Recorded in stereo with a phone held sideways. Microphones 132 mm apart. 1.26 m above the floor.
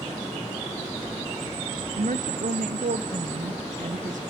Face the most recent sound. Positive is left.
turn(degrees=-85)